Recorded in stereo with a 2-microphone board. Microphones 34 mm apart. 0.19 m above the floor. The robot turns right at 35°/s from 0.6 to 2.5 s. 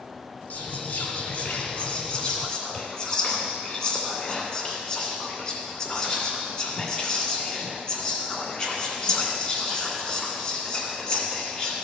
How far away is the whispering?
About 2 m.